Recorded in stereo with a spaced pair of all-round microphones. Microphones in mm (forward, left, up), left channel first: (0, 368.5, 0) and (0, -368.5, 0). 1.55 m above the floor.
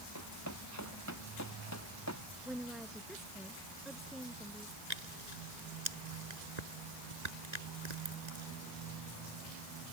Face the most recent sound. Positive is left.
turn(degrees=-65)  # may be behind; listen again after turning